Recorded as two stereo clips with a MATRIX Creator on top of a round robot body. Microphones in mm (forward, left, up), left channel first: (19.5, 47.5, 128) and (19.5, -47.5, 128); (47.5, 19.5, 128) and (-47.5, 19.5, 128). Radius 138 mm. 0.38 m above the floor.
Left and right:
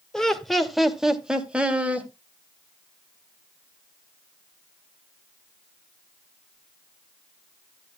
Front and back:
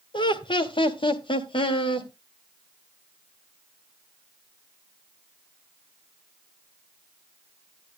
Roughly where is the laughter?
Ahead.